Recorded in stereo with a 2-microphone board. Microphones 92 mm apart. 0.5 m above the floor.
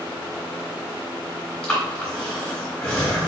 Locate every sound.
1.6 s breathing: 15° left (ahead or behind), 2 m